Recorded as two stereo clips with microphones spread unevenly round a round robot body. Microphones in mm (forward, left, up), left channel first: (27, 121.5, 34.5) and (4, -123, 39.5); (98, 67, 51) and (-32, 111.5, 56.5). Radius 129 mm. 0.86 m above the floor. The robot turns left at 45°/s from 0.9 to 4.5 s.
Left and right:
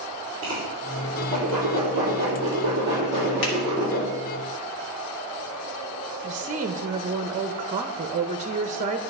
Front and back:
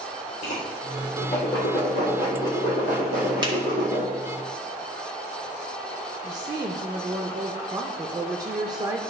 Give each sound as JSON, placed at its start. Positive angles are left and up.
{"t": 0.4, "sound": "a whoosh", "azimuth_deg": -60, "distance_m": 4.0}
{"t": 3.4, "sound": "a finger snap", "azimuth_deg": 105, "distance_m": 2.0}
{"t": 6.2, "sound": "a woman speaking", "azimuth_deg": -145, "distance_m": 0.5}